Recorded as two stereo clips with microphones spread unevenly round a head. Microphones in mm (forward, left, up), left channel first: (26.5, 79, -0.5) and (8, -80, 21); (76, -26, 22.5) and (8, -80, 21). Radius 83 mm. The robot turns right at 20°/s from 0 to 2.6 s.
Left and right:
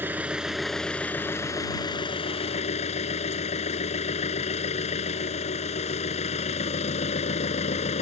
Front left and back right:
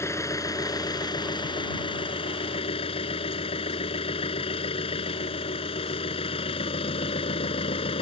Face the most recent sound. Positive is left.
turn(degrees=35)